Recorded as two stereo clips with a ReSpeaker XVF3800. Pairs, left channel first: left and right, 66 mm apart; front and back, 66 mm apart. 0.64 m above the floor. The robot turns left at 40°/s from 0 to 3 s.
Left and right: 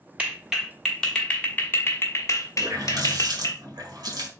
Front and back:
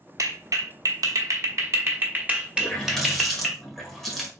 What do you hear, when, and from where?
0.2 s a clap: 155° right, 1.0 m; by 3.6 s 90° left, 1.0 m
2.6 s a running tap: 70° right, 1.7 m; by 4.3 s 85° right, 1.7 m